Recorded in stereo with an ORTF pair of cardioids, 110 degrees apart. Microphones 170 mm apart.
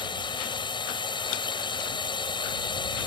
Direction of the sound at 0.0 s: 30° left.